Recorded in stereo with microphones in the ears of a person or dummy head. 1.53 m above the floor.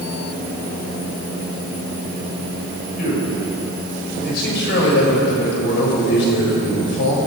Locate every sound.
3.0 s a man speaking: 50° left (ahead or behind), 6 m; by 7.2 s 70° left (ahead or behind), 6.5 m